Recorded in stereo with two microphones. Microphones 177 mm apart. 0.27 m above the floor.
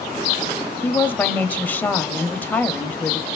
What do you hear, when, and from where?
0.8 s a woman speaking: 10° left (ahead or behind), 1.0 m